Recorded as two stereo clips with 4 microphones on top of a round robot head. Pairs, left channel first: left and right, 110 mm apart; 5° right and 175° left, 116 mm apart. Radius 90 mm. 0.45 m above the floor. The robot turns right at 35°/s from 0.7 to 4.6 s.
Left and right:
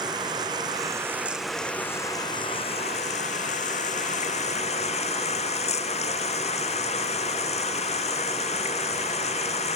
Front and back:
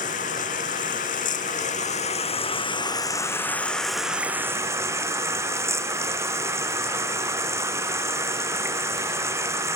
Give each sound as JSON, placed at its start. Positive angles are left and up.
{"t": 0.0, "sound": "running water", "azimuth_deg": -30}